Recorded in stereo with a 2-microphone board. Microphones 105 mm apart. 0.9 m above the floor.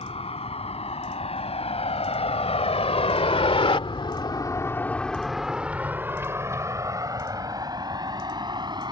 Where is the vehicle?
75° left (ahead or behind); by 8.9 s 45° right (ahead or behind).